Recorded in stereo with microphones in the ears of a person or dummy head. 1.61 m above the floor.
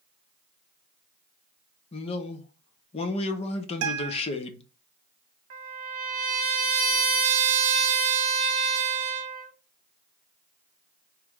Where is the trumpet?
45° right (ahead or behind), 0.7 m.